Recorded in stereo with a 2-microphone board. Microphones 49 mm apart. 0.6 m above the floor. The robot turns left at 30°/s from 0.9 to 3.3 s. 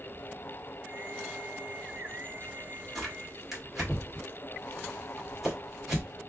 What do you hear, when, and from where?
3.0 s tearing paper: 5° left (ahead or behind), 1.9 m; by 6.1 s 5° right (ahead or behind), 1.9 m